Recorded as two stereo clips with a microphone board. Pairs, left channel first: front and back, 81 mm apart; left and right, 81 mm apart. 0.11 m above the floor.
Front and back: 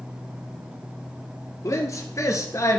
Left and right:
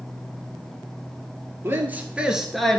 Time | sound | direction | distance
1.6 | a man speaking | 35° right | 1.7 m